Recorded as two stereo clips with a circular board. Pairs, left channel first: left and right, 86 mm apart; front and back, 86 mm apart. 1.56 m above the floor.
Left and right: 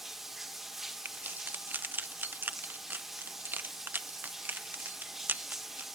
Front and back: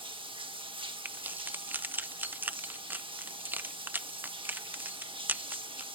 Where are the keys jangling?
135° right, 0.6 m.